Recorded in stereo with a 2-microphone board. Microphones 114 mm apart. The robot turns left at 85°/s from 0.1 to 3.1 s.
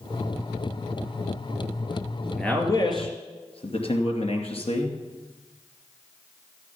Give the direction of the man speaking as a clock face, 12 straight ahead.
6 o'clock.